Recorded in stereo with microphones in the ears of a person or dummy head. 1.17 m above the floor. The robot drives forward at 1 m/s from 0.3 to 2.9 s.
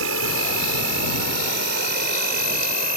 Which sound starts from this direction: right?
An insect, at 0.0 s.